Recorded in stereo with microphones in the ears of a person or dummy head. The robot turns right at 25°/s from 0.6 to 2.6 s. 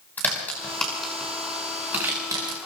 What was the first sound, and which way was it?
A crack, 15° left (ahead or behind).